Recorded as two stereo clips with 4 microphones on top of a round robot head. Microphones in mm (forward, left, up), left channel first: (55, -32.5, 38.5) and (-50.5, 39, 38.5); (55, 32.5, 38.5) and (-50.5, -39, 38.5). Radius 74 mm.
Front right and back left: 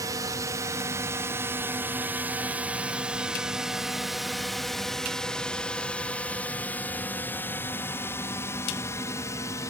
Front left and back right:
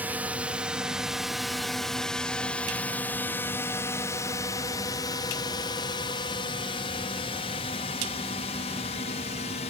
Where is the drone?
150° left; by 9.7 s 25° left.